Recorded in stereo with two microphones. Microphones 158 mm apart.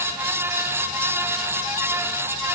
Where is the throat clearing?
I don't hear throat clearing.